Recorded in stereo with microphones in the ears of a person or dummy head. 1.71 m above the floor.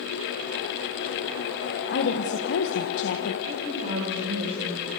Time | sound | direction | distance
1.9 | a woman speaking | 70° left (ahead or behind) | 1.5 m
3.5 | a woman speaking | 55° right (ahead or behind) | 7 m